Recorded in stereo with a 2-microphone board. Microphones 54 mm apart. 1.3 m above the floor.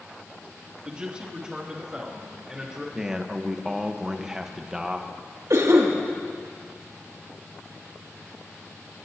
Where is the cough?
70° right (ahead or behind), 2.5 m.